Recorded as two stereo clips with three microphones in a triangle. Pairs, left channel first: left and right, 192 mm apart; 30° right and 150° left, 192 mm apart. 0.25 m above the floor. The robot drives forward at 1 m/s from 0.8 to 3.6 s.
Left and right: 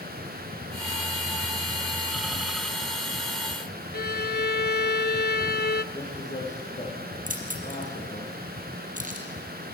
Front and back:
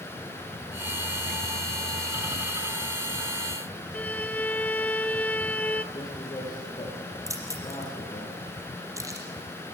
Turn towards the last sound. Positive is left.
turn(degrees=-135)